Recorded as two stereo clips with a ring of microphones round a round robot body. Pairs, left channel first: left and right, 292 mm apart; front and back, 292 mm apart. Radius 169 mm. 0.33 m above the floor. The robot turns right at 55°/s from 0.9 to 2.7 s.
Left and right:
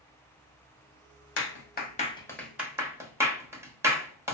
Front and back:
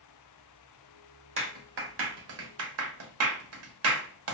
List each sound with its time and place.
1.4 s a clap: 115° left, 1.1 m; by 4.3 s 170° right, 1.1 m